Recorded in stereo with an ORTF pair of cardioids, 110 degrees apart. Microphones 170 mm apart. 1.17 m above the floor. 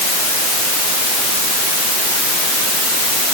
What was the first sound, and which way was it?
Only background noise.